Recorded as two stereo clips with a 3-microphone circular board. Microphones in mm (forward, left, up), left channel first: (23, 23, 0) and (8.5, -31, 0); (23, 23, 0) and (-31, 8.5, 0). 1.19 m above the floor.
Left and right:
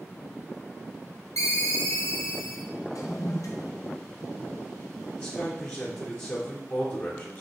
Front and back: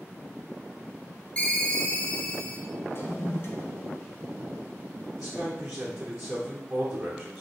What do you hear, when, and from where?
1.4 s a ringtone: 80° left, 0.7 m
2.9 s a toilet flushing: 60° left, 0.7 m
5.2 s a man speaking: 120° left, 0.9 m